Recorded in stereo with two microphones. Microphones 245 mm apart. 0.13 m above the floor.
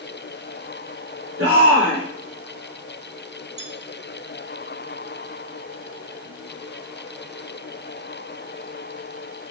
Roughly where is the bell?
Right.